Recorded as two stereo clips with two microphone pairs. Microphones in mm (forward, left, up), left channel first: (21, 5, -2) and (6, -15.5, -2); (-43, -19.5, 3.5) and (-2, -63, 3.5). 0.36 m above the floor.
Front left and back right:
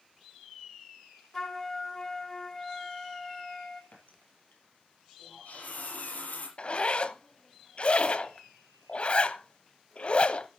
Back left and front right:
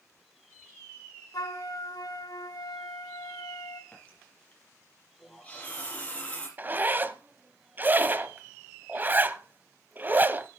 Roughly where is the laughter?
No laughter in this recording.